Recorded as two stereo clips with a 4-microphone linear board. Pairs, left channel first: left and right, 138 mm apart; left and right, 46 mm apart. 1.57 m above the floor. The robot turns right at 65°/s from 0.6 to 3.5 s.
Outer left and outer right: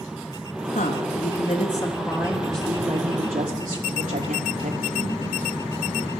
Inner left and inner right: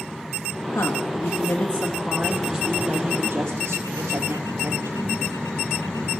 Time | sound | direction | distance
0.7 | a woman speaking | 90° left | 3.5 m